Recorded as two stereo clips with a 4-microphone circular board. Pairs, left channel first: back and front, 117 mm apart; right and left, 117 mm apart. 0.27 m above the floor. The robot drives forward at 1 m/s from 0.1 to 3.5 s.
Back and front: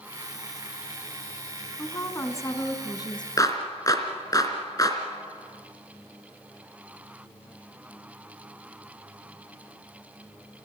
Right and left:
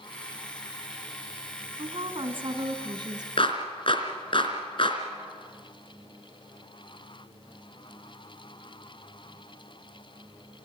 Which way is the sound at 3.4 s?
125° right.